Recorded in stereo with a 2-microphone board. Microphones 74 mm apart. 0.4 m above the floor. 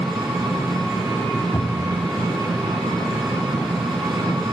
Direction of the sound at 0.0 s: 60° right (ahead or behind).